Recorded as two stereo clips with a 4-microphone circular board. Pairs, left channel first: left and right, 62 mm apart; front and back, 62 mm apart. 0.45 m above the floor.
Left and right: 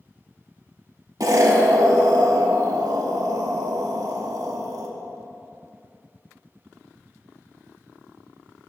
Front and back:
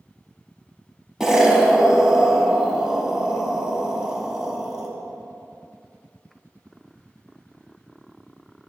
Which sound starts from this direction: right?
An explosion, at 1.2 s.